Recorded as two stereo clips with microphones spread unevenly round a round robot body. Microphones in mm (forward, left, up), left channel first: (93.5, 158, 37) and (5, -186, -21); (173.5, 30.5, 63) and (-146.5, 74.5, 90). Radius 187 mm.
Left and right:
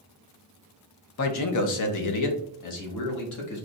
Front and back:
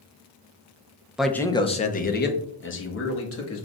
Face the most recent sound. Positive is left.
turn(degrees=35)